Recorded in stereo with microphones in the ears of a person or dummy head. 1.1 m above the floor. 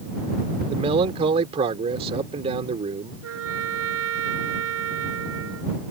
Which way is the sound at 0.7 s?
30° right (ahead or behind).